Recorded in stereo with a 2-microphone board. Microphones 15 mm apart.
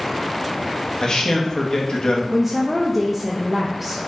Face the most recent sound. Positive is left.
turn(degrees=-10)  # may be behind; listen again after turning